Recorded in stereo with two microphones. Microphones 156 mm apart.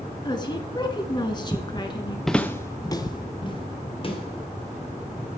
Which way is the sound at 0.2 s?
30° left (ahead or behind).